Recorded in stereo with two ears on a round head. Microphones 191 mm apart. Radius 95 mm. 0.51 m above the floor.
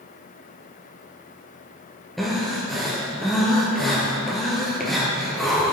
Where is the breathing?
Centre (ahead or behind), 2.5 m.